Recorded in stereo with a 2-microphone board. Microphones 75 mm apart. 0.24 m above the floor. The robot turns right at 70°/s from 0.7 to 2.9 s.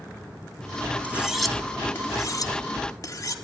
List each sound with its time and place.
1.0 s cutlery clinking: 20° right (ahead or behind), 1.1 m; by 3.4 s 50° left (ahead or behind), 1.1 m